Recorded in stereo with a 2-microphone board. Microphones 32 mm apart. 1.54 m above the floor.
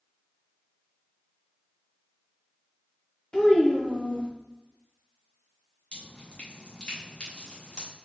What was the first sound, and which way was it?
A child speaking, 25° left (ahead or behind).